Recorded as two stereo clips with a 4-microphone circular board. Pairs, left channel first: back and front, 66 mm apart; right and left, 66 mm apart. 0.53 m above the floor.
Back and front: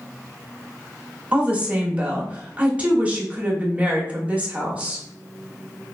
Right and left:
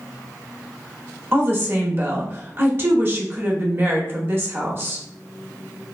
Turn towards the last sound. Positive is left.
turn(degrees=55)